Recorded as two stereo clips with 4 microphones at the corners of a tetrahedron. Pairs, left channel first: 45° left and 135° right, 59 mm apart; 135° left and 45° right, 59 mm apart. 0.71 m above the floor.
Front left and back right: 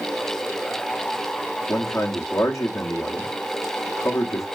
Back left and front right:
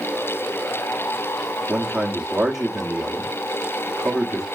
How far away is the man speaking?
About 1.0 m.